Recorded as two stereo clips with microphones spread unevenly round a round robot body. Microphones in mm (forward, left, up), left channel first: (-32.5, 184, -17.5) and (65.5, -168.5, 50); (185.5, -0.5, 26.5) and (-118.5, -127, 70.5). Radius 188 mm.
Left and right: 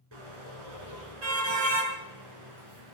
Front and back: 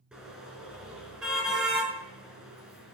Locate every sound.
0.1 s a car horn: 70° right, 6.5 m